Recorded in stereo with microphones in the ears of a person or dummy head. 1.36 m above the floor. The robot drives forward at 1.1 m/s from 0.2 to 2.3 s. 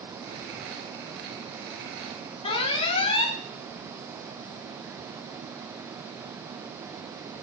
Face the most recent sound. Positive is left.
turn(degrees=30)  # may be behind; listen again after turning